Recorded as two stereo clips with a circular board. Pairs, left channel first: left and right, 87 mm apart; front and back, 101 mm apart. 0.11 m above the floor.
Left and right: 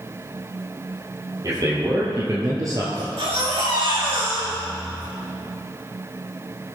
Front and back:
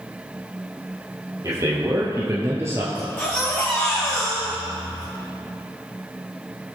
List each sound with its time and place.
1.4 s a man speaking: 130° right, 3 m; by 2.9 s 125° right, 2 m
3.0 s a baby crying: 70° right, 4 m